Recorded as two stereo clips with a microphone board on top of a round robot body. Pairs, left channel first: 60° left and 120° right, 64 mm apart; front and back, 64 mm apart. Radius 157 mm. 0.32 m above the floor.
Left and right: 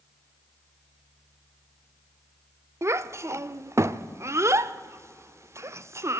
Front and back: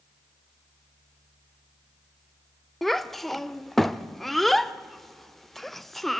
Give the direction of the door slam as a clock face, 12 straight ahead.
No door slam in this recording.